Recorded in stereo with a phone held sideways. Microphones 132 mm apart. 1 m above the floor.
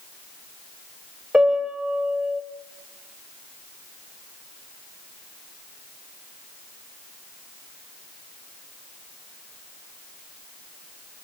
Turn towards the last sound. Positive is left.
turn(degrees=-5)  # may be behind; listen again after turning